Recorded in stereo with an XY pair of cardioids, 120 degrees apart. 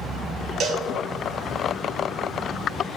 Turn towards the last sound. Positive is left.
turn(degrees=-55)